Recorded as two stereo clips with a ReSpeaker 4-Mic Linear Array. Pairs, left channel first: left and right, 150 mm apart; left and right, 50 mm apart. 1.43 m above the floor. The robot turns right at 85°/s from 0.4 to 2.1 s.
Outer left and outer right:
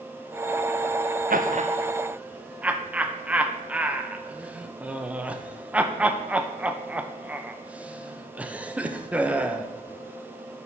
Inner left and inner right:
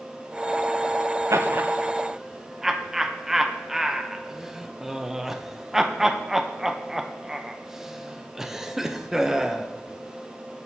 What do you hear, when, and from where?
1.3 s laughter: 70° right (ahead or behind), 1.0 m; by 9.7 s 10° right (ahead or behind), 1.0 m